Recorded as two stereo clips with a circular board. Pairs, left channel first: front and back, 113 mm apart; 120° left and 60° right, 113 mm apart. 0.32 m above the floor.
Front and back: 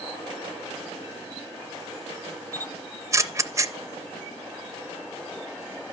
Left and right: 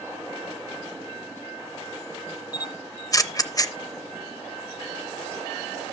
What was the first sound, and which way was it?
A camera shutter, 145° left.